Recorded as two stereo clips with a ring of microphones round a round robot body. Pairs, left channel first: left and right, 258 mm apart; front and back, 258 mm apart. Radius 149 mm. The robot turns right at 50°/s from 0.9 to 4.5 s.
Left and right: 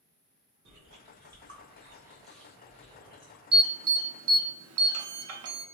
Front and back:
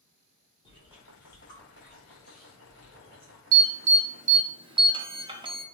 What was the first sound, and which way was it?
Chewing, 70° right.